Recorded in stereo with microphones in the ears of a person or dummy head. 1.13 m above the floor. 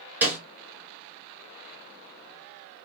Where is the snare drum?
10° right (ahead or behind), 1.1 m.